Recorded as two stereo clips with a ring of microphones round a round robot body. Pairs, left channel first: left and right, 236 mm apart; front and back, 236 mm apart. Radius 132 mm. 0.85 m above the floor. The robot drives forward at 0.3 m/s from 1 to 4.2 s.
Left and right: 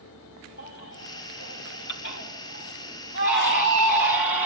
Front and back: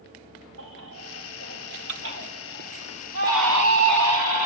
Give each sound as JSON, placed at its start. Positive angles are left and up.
{"t": 0.6, "sound": "a baby crying", "azimuth_deg": 140, "distance_m": 3.5}